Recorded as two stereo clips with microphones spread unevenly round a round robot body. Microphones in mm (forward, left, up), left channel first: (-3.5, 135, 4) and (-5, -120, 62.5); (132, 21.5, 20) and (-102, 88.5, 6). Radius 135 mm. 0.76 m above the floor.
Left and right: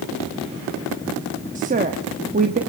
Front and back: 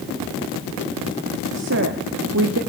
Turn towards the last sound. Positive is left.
turn(degrees=-155)